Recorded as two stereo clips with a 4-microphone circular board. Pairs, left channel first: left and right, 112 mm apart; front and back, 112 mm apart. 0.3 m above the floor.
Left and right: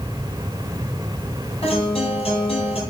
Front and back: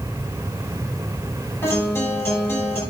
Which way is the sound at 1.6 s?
65° left.